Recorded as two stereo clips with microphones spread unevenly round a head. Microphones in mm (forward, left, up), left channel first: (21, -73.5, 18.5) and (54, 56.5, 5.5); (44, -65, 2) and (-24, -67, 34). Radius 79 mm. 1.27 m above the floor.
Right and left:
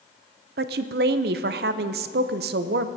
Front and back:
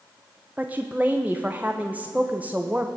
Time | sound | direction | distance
0.6 | a woman speaking | 100° left | 0.5 m